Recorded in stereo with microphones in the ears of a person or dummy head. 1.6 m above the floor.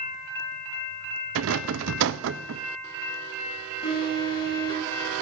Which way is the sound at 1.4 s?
70° right (ahead or behind).